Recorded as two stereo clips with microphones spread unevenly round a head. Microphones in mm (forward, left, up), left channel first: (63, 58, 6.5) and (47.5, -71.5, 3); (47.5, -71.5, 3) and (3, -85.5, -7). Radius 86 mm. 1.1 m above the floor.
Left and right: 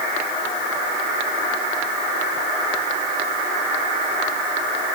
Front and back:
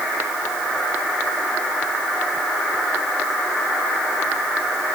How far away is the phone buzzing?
No phone buzzing in this recording.